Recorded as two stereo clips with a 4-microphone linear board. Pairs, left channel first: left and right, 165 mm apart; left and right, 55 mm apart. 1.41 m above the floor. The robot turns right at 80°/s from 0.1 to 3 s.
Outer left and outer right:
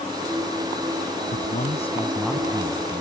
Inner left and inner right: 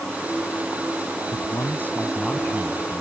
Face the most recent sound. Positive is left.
turn(degrees=-120)